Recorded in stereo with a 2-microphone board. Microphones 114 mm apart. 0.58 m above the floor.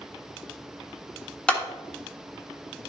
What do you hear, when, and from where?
1.5 s a clap: 10° left (ahead or behind), 1.0 m